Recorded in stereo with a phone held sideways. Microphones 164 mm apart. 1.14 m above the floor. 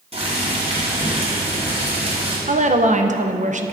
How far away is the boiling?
About 3 m.